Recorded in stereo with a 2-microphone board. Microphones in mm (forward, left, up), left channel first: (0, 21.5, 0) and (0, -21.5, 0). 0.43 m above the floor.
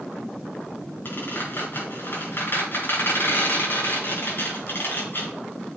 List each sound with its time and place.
1.1 s a squeak: 50° left (ahead or behind), 5 m